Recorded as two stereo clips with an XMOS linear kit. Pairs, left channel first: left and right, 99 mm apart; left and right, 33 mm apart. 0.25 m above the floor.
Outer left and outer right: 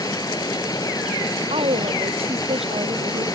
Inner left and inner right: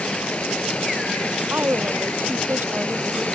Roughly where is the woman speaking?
Right.